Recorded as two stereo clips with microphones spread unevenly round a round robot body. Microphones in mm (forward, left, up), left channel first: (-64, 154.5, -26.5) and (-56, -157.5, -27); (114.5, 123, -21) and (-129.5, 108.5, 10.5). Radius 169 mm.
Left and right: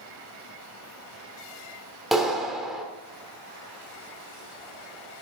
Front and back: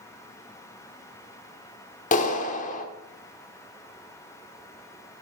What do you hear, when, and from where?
2.1 s a clap: straight ahead, 1.1 m